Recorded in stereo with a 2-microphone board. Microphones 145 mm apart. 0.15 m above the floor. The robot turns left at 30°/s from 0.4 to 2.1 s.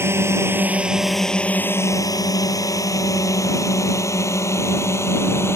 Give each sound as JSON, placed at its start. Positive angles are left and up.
{"t": 0.0, "sound": "a drone", "side_deg": -15}